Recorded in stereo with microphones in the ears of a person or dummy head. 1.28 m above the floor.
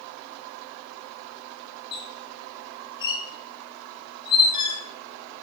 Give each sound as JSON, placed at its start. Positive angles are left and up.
{"t": 1.9, "sound": "a squeak", "side_deg": 25, "distance_m": 4.0}